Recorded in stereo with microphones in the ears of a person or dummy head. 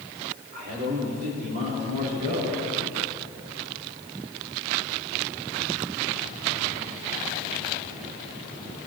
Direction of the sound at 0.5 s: 55° right (ahead or behind).